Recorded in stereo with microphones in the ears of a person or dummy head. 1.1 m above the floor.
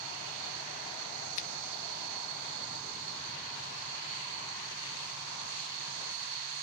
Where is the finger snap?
45° left (ahead or behind), 1.5 m.